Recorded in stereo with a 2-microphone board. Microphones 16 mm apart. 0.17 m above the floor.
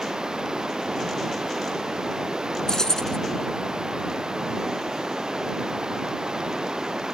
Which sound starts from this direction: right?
Running water, at 0.0 s.